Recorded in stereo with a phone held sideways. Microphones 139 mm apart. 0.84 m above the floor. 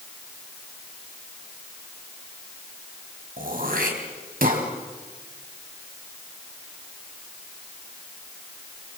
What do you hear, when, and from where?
3.4 s throat clearing: 75° right (ahead or behind), 3.5 m